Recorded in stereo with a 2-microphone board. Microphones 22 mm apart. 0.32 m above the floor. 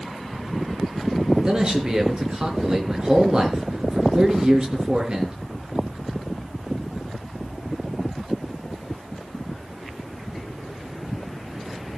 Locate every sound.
1.4 s a man speaking: 35° right (ahead or behind), 4 m